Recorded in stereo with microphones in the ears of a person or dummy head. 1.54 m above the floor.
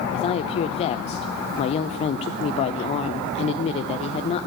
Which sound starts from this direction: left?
A woman speaking, at 0.1 s.